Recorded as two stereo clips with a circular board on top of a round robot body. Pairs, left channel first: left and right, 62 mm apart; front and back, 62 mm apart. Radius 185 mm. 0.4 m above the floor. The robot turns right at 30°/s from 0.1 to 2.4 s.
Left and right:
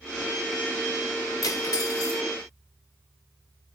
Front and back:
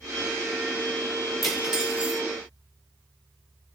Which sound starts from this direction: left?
Cutlery clinking, at 1.4 s.